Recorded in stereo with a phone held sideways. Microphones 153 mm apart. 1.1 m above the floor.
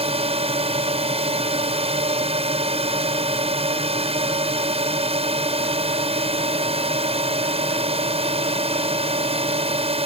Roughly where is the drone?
Right.